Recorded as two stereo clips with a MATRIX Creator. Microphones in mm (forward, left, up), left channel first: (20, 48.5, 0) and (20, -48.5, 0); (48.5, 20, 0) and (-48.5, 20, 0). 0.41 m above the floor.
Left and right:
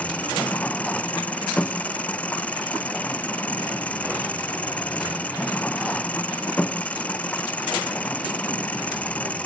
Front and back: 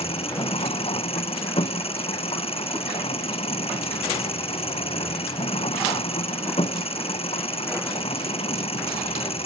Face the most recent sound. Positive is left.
turn(degrees=15)